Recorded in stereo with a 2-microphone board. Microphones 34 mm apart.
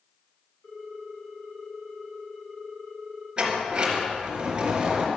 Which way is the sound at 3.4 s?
25° right (ahead or behind).